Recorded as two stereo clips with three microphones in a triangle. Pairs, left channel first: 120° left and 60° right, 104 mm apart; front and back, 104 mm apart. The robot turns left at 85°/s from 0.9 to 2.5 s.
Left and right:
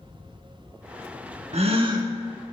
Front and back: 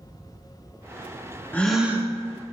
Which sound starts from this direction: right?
A gasp, at 1.5 s.